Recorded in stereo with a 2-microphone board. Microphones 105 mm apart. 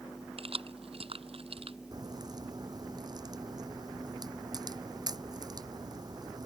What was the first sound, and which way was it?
Keys jangling, 65° right (ahead or behind).